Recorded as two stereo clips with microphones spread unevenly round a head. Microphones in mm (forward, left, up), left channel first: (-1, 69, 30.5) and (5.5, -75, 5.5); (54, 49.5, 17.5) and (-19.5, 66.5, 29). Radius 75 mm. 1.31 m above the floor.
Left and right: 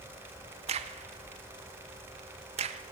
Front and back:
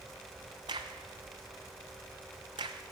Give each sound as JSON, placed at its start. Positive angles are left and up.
{"t": 0.7, "sound": "a crack", "azimuth_deg": -135, "distance_m": 0.7}